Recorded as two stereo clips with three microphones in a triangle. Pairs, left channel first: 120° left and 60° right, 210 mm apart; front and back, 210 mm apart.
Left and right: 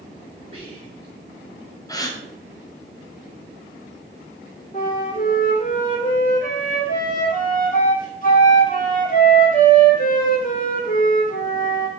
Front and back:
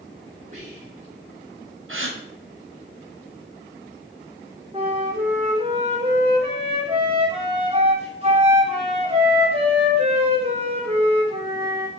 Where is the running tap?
No running tap in this recording.